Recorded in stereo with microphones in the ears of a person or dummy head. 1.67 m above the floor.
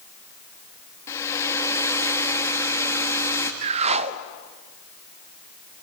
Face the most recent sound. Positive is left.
turn(degrees=-40)  # may be behind; listen again after turning